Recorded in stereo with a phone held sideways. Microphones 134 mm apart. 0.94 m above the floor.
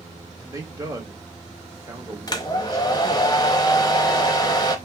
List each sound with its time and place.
0.4 s a man speaking: 25° right (ahead or behind), 1.4 m
2.3 s a hair dryer: 30° left (ahead or behind), 0.7 m